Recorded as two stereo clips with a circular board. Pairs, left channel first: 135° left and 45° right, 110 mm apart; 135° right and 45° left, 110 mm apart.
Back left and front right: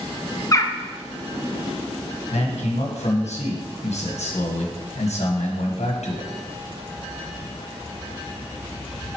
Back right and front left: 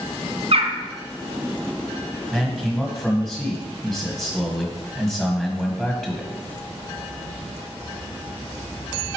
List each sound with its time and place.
0.5 s a bird: 75° left, 0.5 m
2.3 s a man speaking: 140° left, 1.4 m